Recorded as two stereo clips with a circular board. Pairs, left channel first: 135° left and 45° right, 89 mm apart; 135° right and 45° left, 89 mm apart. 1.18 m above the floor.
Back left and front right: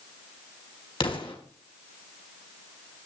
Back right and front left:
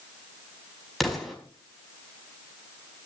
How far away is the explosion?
About 4.5 m.